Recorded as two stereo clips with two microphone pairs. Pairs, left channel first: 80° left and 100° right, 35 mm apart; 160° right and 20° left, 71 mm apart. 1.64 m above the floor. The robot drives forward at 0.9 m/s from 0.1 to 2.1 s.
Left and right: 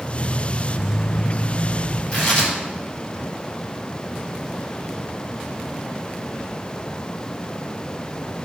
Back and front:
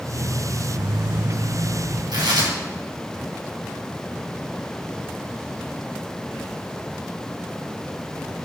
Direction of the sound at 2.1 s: 20° left.